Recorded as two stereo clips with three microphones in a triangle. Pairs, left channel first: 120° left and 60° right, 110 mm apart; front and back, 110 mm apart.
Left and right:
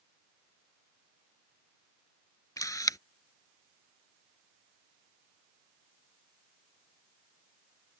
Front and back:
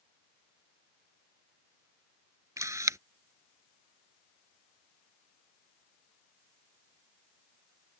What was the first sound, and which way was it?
A camera shutter, 145° left.